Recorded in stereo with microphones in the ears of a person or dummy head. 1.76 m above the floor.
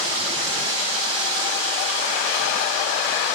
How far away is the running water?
About 2.5 m.